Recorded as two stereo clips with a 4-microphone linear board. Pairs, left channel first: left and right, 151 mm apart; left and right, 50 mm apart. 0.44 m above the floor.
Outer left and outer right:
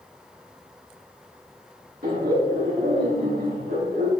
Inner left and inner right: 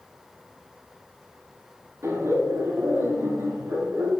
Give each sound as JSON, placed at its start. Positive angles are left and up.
{"t": 2.0, "sound": "laughter", "side_deg": -80, "distance_m": 6.0}